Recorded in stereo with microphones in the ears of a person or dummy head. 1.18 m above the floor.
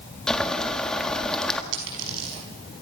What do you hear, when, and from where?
0.3 s boiling: 5° left (ahead or behind), 1.8 m
1.7 s a dropped coin: 85° right, 6 m